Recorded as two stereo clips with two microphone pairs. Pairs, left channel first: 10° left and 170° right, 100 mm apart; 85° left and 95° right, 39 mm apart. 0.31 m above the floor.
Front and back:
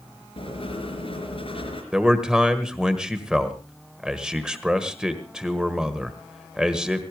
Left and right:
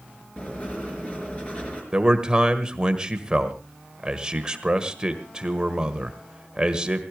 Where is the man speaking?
100° right, 1.5 m.